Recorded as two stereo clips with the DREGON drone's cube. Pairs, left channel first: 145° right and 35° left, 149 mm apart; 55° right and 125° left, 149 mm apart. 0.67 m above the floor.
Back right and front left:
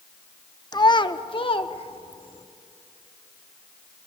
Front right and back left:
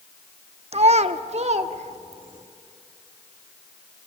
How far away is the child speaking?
About 0.8 m.